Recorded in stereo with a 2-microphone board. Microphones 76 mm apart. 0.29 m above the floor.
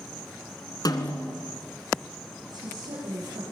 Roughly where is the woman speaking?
Right.